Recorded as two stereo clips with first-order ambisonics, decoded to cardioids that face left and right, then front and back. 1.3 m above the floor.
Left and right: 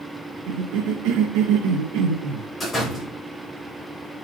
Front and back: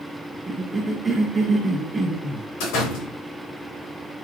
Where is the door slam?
10° left, 3.5 m.